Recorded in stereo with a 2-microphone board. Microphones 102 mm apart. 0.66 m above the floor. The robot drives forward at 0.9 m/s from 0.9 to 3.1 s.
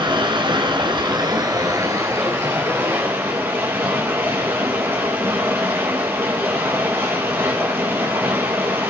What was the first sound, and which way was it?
Running water, 50° right (ahead or behind).